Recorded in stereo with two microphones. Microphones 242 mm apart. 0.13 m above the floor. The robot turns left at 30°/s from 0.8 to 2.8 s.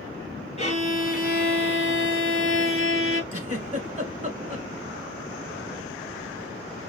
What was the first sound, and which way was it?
A violin, 145° left.